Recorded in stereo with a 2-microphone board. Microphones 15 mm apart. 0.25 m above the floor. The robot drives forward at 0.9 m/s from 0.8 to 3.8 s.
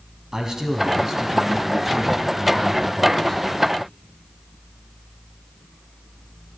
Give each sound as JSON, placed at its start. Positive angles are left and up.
{"t": 0.3, "sound": "a man speaking", "side_deg": -45, "distance_m": 1.7}